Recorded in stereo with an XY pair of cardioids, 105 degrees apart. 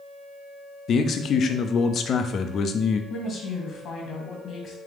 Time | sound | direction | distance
0.9 | a man speaking | 55° left | 0.6 m
3.1 | a woman speaking | 55° left | 1.7 m